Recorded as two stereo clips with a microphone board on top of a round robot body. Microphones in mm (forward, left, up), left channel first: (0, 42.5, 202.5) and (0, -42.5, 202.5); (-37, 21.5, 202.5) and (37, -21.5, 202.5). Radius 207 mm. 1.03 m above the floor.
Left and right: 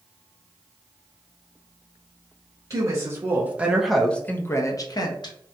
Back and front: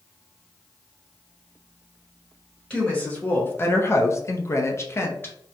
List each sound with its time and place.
2.7 s a woman speaking: 135° right, 1.2 m; by 5.3 s 90° left, 1.1 m